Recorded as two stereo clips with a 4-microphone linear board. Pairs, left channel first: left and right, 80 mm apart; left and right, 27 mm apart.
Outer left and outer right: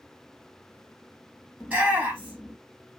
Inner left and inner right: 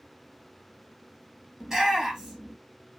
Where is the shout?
15° right (ahead or behind), 4 m.